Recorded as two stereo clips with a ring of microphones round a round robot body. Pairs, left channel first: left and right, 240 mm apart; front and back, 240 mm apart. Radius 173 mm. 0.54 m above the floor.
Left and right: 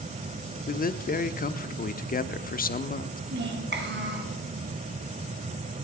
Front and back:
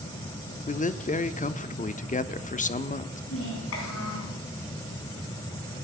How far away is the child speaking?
About 4.5 m.